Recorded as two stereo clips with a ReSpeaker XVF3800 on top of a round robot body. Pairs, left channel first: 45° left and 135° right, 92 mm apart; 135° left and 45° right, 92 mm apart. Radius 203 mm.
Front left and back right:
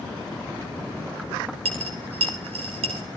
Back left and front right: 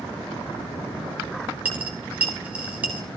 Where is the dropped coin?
120° right, 0.6 m.